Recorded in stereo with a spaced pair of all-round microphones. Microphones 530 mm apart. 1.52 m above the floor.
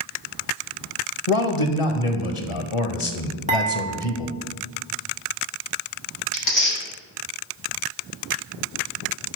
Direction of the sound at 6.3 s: 65° left (ahead or behind).